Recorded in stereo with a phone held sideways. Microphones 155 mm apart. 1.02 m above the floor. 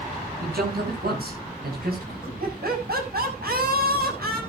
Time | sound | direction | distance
0.4 | a man speaking | 85° right | 8 m
2.4 | laughter | 80° right | 7 m